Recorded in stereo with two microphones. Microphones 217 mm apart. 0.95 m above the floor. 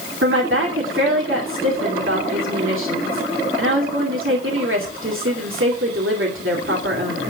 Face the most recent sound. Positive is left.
turn(degrees=-70)  # may be behind; listen again after turning